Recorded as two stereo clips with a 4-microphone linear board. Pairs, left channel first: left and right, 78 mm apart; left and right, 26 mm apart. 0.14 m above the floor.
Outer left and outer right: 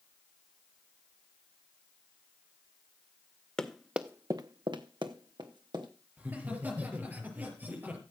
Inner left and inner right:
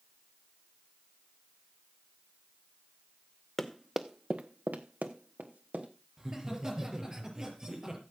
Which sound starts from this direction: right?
Laughter, at 6.2 s.